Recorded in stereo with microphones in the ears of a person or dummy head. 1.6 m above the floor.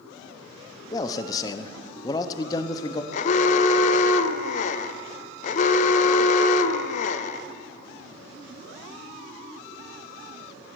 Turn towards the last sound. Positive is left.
turn(degrees=45)  # may be behind; listen again after turning